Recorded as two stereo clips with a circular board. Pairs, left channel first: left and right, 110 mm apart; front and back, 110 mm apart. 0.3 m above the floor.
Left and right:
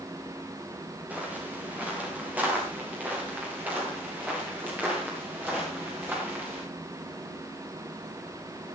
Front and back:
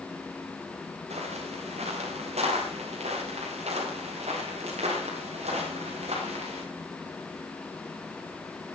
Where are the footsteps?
165° right, 9.5 m.